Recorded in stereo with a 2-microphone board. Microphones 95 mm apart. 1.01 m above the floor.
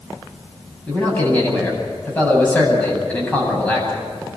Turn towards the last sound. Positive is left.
turn(degrees=20)  # may be behind; listen again after turning